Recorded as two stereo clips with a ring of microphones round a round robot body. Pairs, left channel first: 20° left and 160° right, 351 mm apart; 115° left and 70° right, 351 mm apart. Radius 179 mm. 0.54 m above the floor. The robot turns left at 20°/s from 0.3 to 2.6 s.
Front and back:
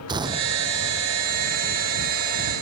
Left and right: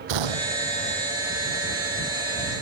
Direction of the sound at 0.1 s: 80° right.